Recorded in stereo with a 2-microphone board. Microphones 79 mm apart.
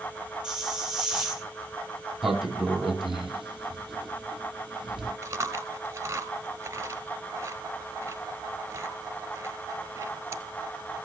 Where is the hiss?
10° right (ahead or behind), 3.5 m.